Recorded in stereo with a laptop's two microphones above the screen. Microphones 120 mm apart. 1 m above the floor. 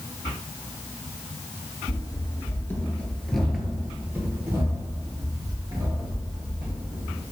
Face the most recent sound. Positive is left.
turn(degrees=-35)  # may be behind; listen again after turning